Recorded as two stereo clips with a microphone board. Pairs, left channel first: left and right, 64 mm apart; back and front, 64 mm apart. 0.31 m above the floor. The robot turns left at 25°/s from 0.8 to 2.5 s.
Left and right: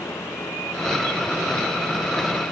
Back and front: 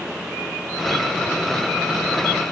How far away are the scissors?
I don't hear scissors.